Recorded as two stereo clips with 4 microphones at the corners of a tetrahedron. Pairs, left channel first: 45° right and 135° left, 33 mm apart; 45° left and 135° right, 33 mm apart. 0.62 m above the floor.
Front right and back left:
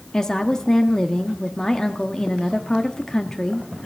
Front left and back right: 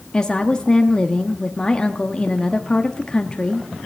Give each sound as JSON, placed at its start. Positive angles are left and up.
{"t": 0.1, "sound": "a woman speaking", "azimuth_deg": 10, "distance_m": 0.7}